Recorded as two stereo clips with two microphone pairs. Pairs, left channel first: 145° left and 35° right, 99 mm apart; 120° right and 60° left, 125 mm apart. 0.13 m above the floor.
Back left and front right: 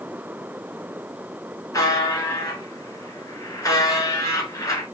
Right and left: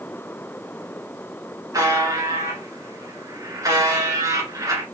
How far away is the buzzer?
About 1.5 m.